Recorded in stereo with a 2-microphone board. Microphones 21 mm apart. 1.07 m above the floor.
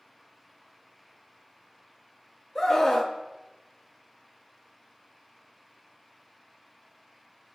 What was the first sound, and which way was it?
A scream, 30° left (ahead or behind).